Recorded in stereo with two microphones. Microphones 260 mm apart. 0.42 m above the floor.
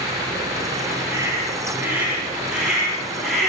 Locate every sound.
1.1 s a scream: 10° right (ahead or behind), 8.5 m; by 3.5 s centre (ahead or behind), 10 m